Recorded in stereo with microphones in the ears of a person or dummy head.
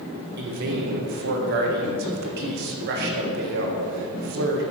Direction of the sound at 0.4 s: 55° right (ahead or behind).